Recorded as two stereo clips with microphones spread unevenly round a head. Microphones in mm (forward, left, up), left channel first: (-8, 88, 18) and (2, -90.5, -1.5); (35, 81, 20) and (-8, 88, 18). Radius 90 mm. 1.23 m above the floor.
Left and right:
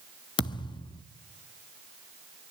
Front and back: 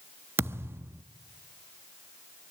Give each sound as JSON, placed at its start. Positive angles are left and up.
{"t": 0.4, "sound": "a thud", "azimuth_deg": 155, "distance_m": 1.0}